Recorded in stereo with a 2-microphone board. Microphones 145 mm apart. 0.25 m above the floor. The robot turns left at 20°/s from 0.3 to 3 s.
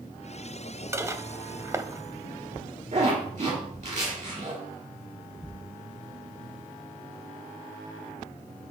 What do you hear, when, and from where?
0.9 s dishes clattering: 20° right (ahead or behind), 0.6 m
2.9 s a zipper: 55° right (ahead or behind), 4 m